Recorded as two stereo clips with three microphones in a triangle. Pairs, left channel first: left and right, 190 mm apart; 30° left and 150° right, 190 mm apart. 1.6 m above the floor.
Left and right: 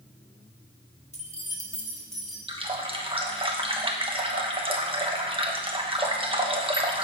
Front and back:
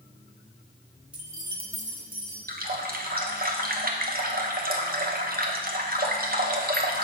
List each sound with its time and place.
1.1 s keys jangling: 130° left, 1.2 m; by 2.4 s 175° right, 1.9 m
2.5 s a running tap: 145° right, 1.0 m